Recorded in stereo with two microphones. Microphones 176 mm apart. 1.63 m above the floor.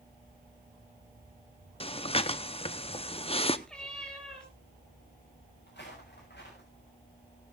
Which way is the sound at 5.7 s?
75° left (ahead or behind).